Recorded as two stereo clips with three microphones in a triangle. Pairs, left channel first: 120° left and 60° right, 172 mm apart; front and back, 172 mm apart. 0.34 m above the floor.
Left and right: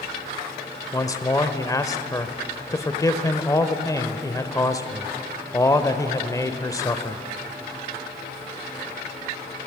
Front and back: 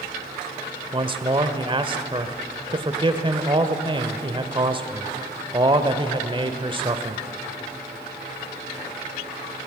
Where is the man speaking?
170° left, 1.0 m.